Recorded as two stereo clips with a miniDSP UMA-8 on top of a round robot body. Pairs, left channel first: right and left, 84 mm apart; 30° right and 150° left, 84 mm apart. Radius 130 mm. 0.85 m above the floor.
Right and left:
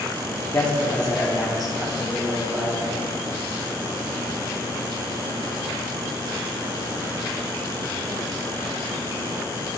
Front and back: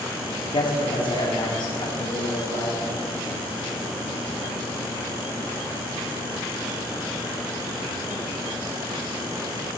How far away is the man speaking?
About 2.0 m.